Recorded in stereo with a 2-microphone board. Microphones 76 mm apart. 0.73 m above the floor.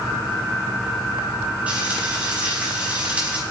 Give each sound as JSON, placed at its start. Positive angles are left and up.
{"t": 1.7, "sound": "frying", "side_deg": -20, "distance_m": 4.5}